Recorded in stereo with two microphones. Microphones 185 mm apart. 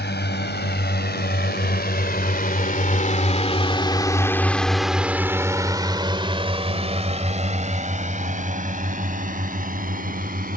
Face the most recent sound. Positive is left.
turn(degrees=-50)  # may be behind; listen again after turning